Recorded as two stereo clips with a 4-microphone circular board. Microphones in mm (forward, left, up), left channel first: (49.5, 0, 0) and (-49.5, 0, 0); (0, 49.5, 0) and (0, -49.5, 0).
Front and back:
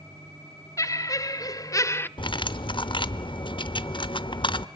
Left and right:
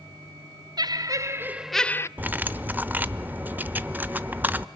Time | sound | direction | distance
0.8 | laughter | 55° right | 1.5 m
2.2 | cutlery clinking | 20° right | 0.8 m